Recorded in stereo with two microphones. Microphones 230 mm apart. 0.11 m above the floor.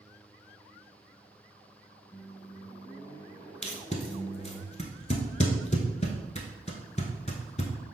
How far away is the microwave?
About 1.1 m.